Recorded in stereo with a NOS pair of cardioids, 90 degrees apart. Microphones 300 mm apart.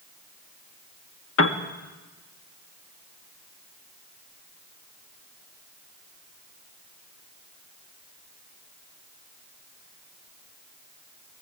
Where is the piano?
45° left, 1.8 m.